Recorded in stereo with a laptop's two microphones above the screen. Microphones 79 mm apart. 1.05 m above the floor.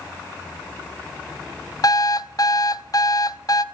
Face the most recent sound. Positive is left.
turn(degrees=50)  # may be behind; listen again after turning